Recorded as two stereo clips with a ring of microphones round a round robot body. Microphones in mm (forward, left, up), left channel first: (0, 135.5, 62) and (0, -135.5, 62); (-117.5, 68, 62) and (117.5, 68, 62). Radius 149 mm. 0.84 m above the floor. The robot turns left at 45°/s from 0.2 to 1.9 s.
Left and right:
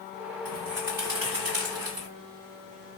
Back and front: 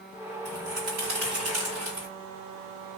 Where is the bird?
15° left, 2.0 m; by 2.1 s 50° right, 2.0 m.